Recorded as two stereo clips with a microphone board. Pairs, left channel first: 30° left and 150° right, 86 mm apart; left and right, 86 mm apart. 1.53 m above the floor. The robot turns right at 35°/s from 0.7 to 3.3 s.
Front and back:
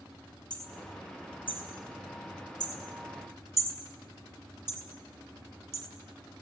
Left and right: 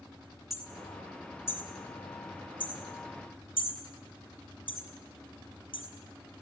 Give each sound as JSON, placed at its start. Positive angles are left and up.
{"t": 0.5, "sound": "hammering", "azimuth_deg": 0, "distance_m": 4.5}